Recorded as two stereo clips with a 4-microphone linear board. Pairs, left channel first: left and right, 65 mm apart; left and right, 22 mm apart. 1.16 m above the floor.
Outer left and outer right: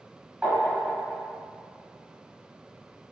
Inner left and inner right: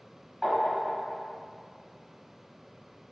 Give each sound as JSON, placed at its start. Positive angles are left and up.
{"t": 0.4, "sound": "tapping", "side_deg": -25, "distance_m": 0.8}